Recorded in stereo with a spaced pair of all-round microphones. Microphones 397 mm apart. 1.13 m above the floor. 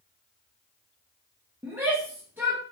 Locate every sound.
1.6 s a shout: 5° right (ahead or behind), 1.0 m